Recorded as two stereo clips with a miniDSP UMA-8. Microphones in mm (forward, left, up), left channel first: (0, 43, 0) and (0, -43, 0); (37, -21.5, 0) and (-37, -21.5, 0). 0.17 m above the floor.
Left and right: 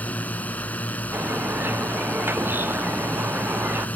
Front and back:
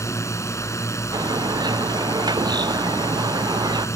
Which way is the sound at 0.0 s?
25° left.